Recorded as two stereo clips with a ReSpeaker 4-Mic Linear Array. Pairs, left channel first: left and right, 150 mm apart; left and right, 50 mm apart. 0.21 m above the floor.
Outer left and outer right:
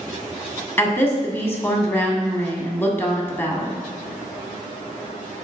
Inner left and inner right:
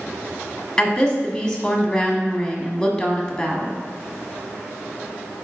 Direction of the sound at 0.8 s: 15° left (ahead or behind).